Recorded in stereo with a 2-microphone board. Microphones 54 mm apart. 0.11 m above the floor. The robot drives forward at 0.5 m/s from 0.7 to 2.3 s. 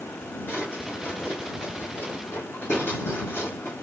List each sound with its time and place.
0.5 s a drawer: 45° left (ahead or behind), 3.5 m; by 3.7 s 55° left (ahead or behind), 3 m